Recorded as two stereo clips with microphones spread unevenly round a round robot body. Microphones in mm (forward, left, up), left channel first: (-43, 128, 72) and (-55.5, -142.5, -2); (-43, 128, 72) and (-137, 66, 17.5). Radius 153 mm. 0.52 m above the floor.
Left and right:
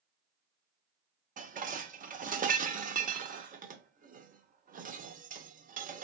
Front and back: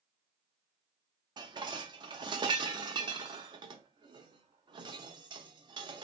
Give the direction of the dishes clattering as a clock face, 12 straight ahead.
5 o'clock.